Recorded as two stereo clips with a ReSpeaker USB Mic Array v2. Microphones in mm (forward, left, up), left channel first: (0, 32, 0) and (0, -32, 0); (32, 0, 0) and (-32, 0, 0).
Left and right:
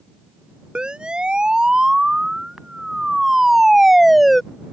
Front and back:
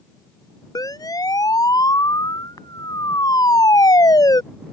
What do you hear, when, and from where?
0.8 s a siren: 15° right; by 4.4 s straight ahead